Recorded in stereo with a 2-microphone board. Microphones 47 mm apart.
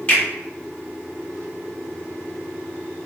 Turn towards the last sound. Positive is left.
turn(degrees=25)  # may be behind; listen again after turning